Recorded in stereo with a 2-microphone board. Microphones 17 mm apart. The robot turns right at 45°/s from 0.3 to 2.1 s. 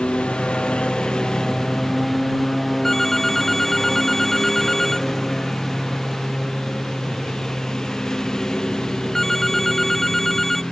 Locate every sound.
0.0 s a lawn mower: 85° left; by 10.7 s 40° left (ahead or behind)
2.8 s a phone ringing: 20° left (ahead or behind)